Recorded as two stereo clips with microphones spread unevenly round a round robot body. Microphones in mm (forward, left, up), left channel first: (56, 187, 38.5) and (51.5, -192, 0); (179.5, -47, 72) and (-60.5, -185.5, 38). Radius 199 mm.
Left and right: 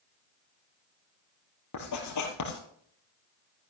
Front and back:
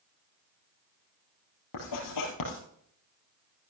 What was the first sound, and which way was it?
Writing, 45° left.